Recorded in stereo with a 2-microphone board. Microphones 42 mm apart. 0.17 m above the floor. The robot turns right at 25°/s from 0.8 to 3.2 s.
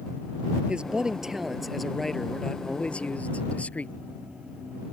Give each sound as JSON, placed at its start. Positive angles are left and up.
{"t": 0.7, "sound": "a man speaking", "azimuth_deg": -25}